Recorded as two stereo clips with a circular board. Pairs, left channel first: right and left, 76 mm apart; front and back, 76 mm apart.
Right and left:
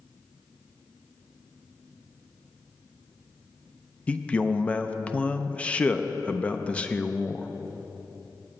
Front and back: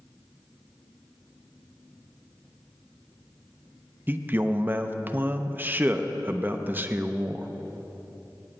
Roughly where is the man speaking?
Behind right.